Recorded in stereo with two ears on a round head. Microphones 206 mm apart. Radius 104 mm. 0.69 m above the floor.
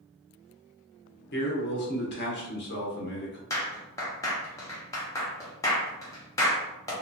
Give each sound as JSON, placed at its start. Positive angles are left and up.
{"t": 1.3, "sound": "a man speaking", "side_deg": 50, "distance_m": 0.9}
{"t": 3.5, "sound": "a clap", "side_deg": 15, "distance_m": 0.8}